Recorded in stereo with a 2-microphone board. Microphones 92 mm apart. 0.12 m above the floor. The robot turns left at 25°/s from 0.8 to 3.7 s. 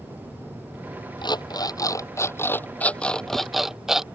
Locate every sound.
1.2 s an alarm clock: 60° left; by 4.0 s 5° right